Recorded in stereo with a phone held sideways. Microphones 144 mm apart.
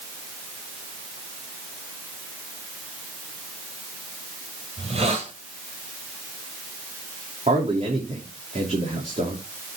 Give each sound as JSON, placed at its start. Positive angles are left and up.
{"t": 4.8, "sound": "a hiss", "side_deg": -45, "distance_m": 2.5}
{"t": 7.5, "sound": "a man speaking", "side_deg": -55, "distance_m": 3.0}